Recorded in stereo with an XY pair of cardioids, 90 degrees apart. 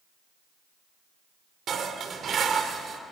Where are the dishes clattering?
60° right, 2.5 m.